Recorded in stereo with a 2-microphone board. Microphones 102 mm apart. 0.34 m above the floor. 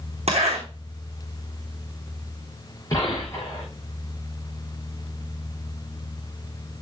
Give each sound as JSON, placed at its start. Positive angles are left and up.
{"t": 0.3, "sound": "a zipper", "side_deg": -70, "distance_m": 3.5}
{"t": 2.9, "sound": "a gunshot", "side_deg": 30, "distance_m": 7.5}